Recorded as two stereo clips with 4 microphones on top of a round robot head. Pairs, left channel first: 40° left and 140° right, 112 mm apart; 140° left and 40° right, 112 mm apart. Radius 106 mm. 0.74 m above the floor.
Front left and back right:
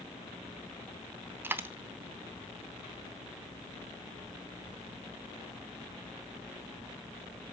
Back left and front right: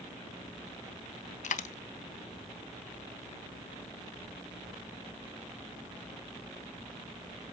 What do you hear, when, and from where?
1.4 s a dropped coin: 145° left, 0.9 m